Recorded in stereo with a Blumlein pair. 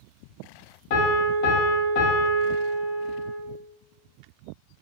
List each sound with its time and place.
0.9 s a piano: 45° left, 0.6 m